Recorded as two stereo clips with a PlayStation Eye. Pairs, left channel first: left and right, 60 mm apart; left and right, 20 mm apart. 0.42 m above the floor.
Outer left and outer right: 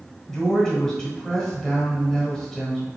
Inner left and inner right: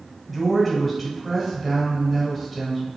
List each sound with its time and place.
0.3 s a woman speaking: 10° left (ahead or behind), 1.6 m